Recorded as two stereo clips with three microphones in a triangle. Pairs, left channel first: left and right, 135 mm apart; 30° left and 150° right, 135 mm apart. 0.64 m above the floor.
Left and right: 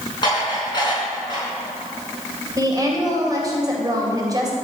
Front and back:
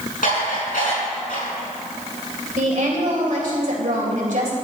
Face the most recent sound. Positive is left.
turn(degrees=-150)